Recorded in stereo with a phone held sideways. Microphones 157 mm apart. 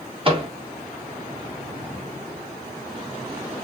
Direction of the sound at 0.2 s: 35° right (ahead or behind).